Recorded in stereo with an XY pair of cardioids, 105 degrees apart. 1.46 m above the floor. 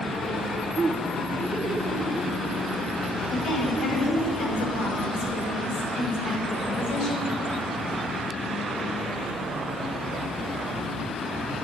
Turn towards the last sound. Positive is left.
turn(degrees=65)